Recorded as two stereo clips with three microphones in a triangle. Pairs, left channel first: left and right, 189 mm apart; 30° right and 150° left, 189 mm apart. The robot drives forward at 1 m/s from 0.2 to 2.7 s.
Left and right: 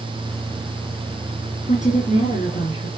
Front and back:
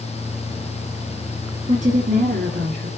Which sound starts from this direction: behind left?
A woman speaking, at 1.7 s.